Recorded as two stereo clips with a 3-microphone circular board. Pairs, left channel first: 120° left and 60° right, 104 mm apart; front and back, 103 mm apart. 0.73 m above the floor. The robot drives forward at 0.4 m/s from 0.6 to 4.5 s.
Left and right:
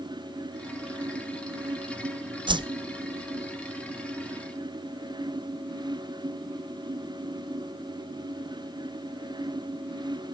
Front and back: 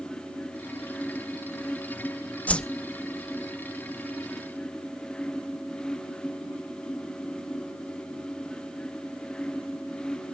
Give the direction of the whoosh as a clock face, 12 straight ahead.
2 o'clock.